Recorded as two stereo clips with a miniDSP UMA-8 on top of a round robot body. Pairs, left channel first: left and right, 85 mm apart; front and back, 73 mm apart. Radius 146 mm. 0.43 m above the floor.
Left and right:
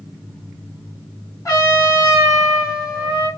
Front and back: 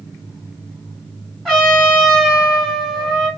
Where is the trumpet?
80° left, 1.7 m.